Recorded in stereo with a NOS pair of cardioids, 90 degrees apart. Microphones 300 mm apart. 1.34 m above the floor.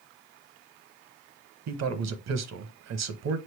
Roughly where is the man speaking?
Ahead right.